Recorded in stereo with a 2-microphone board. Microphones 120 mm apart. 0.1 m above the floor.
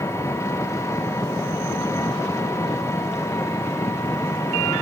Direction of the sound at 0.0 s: 25° left (ahead or behind).